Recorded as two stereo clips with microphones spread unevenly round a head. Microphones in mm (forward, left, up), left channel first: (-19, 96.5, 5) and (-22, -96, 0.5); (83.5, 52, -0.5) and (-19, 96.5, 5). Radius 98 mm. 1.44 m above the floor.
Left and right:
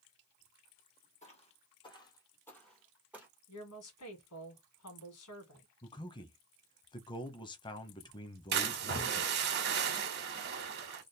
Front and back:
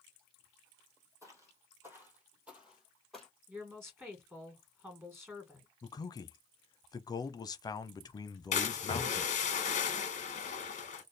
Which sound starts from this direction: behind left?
Footsteps, at 1.2 s.